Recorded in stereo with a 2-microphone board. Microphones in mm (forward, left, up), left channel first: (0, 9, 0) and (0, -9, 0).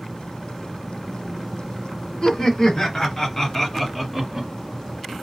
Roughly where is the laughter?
Left.